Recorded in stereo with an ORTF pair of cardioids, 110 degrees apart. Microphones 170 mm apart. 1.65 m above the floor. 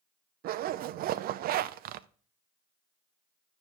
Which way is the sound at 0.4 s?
65° right.